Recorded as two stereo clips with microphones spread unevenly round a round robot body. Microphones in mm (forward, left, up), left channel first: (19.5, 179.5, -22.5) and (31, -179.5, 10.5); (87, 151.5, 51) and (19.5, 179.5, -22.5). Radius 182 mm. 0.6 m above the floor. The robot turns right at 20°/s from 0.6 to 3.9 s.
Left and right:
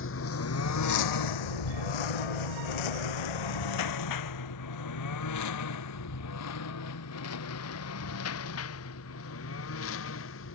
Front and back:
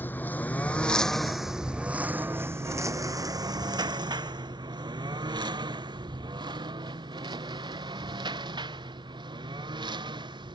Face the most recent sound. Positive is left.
turn(degrees=150)